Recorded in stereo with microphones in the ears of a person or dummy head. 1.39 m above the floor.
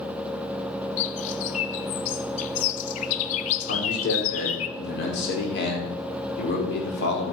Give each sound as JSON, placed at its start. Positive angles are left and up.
{"t": 1.0, "sound": "a bird", "side_deg": 40, "distance_m": 0.7}
{"t": 3.7, "sound": "a man speaking", "side_deg": 70, "distance_m": 4.5}